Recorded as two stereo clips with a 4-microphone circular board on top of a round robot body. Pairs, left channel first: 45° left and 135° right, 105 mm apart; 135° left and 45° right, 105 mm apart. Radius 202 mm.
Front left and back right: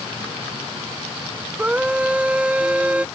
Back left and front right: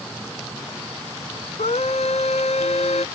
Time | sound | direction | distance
1.6 | a scream | 145° left | ?